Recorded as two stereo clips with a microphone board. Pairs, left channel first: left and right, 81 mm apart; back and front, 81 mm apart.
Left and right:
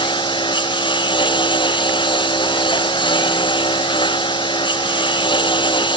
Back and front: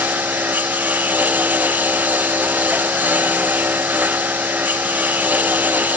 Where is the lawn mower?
70° left.